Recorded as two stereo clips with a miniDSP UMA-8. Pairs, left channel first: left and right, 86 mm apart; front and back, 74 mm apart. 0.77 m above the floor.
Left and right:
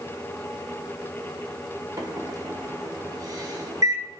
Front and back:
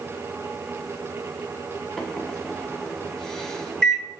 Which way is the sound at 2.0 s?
75° right.